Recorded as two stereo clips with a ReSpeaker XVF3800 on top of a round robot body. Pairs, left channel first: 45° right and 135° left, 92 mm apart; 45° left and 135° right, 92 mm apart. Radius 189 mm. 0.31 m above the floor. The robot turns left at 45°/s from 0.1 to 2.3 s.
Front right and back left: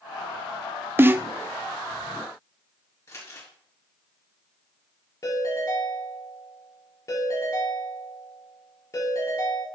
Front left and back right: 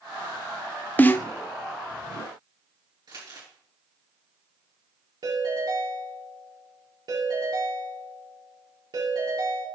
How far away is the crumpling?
About 3.5 m.